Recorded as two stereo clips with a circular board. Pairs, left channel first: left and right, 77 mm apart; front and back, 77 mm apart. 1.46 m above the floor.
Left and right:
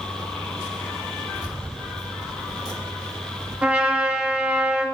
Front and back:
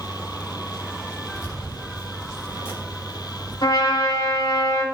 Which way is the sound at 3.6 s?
20° right.